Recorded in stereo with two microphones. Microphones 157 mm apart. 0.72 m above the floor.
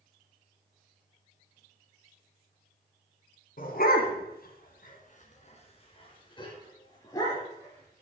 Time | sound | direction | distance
3.6 | a dog barking | 65° left (ahead or behind) | 1.9 m